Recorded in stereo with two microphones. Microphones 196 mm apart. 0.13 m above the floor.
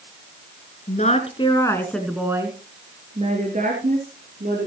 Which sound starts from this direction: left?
A woman speaking, at 0.9 s.